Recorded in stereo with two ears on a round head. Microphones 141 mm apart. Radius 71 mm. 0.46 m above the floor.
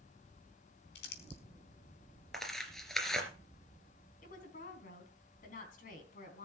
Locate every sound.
0.9 s crumpling: 75° left (ahead or behind), 4 m
2.3 s tearing paper: centre (ahead or behind), 2.5 m
4.2 s a woman speaking: 55° left (ahead or behind), 4 m